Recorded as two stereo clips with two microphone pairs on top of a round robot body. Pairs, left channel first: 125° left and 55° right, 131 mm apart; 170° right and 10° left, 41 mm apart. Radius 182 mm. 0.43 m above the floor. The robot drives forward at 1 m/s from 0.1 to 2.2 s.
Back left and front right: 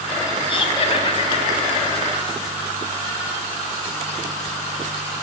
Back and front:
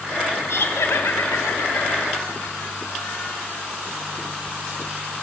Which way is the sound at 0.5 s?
175° left.